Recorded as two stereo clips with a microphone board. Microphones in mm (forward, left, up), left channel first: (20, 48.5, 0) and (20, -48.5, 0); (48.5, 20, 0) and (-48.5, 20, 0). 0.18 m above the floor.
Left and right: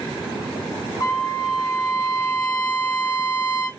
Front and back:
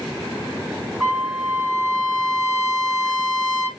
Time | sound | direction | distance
1.0 | a trumpet | 110° left | 2.5 m